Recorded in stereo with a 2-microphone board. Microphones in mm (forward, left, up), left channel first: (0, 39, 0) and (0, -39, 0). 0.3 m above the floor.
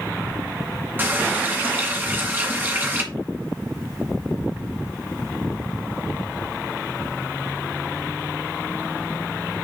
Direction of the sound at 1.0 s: 25° right (ahead or behind).